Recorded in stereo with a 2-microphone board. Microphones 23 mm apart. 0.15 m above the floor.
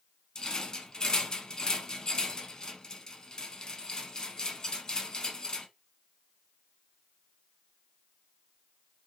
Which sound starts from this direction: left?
A rattle, at 0.3 s.